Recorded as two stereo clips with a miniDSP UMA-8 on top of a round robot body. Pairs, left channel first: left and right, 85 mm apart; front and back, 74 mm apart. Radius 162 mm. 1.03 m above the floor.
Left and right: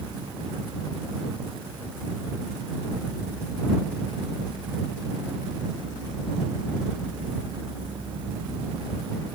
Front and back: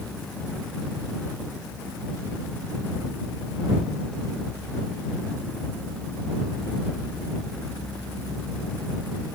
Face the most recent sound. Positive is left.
No sound to turn to.